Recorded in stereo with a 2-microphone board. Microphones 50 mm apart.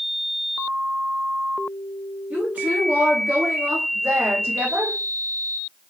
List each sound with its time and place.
2.3 s a woman speaking: 35° right (ahead or behind), 2 m; by 5.0 s 60° right (ahead or behind), 1.1 m